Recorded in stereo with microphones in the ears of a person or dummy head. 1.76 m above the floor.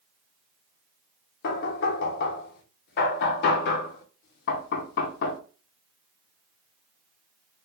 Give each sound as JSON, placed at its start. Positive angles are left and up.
{"t": 1.4, "sound": "knocking", "side_deg": 60, "distance_m": 0.6}